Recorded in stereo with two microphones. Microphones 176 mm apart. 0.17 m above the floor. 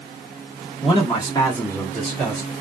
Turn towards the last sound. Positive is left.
turn(degrees=-10)  # may be behind; listen again after turning